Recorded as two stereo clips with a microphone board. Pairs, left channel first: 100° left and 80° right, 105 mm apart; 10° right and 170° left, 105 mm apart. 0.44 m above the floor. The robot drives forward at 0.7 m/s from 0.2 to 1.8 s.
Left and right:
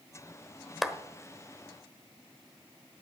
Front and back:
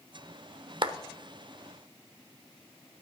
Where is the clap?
170° right, 0.8 m.